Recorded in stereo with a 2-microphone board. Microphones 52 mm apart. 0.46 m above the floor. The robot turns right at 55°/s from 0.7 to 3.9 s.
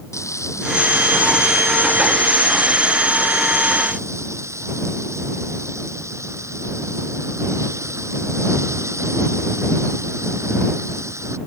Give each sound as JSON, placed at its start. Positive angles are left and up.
{"t": 0.1, "sound": "frying", "azimuth_deg": 75}